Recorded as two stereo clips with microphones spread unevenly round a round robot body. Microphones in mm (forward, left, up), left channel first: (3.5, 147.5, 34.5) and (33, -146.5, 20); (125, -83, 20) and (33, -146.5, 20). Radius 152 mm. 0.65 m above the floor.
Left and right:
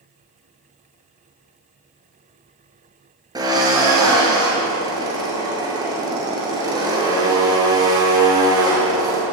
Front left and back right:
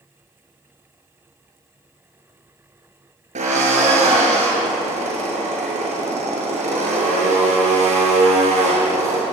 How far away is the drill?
About 8.5 m.